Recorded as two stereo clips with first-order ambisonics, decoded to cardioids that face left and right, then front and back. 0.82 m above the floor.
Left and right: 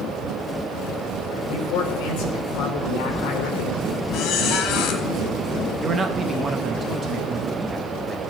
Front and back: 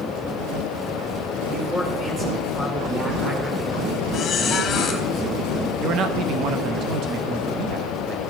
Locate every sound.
1.4 s a man speaking: 105° left, 3 m
4.1 s a squeak: 55° left, 1.8 m
5.8 s a man speaking: 150° right, 0.8 m